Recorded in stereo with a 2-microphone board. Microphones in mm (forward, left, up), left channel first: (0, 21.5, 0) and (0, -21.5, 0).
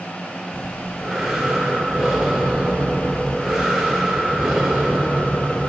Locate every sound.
0.5 s breathing: 10° right (ahead or behind), 2 m